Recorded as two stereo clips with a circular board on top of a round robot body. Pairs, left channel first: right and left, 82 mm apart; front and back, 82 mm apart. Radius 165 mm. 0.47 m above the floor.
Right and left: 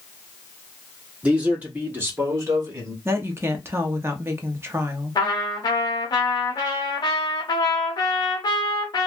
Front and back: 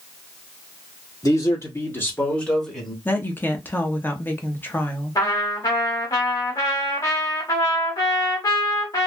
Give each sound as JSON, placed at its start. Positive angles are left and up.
{"t": 1.2, "sound": "a man speaking", "azimuth_deg": 20, "distance_m": 1.9}
{"t": 3.0, "sound": "a woman speaking", "azimuth_deg": 50, "distance_m": 0.9}
{"t": 5.2, "sound": "a trumpet", "azimuth_deg": -50, "distance_m": 0.6}